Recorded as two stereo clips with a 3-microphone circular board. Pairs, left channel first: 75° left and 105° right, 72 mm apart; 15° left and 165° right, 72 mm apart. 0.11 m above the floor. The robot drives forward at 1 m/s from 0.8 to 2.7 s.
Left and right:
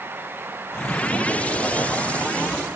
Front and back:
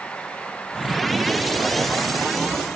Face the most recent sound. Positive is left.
No sound to turn to.